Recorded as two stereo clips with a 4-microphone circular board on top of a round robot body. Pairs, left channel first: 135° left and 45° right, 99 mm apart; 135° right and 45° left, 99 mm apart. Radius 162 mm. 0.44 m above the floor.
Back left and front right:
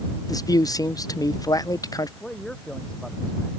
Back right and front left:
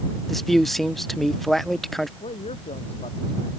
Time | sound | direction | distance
0.3 | a man speaking | 140° left | ?
2.2 | a man speaking | 140° right | ?